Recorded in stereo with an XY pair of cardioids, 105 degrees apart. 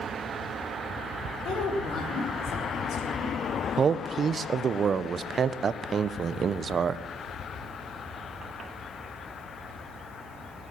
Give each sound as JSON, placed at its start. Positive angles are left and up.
{"t": 1.4, "sound": "a woman speaking", "azimuth_deg": 65, "distance_m": 4.0}
{"t": 3.8, "sound": "a man speaking", "azimuth_deg": -45, "distance_m": 0.7}